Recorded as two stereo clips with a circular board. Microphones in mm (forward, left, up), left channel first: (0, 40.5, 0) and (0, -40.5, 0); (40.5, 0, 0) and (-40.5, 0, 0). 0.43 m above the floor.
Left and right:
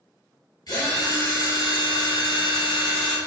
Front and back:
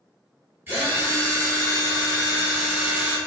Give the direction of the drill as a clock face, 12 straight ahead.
8 o'clock.